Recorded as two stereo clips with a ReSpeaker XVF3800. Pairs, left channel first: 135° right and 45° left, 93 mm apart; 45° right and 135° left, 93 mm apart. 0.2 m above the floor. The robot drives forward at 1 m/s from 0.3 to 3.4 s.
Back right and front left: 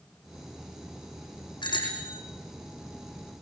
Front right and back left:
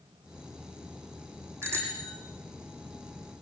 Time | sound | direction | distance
1.6 | a bicycle bell | 165° right | 7.5 m